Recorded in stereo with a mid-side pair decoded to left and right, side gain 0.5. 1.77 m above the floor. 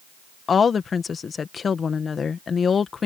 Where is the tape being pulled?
I don't hear tape being pulled.